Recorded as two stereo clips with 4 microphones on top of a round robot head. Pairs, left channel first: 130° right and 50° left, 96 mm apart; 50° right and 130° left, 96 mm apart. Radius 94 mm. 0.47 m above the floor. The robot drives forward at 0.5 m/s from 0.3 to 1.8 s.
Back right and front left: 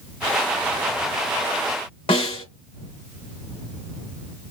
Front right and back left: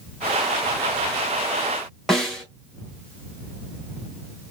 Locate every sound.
2.1 s a snare drum: 140° right, 2.5 m